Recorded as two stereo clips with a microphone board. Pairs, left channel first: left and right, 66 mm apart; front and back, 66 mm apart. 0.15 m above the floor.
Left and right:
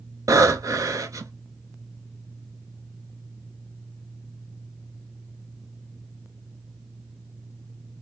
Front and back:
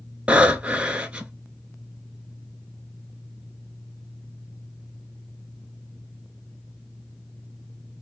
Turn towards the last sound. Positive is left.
turn(degrees=-105)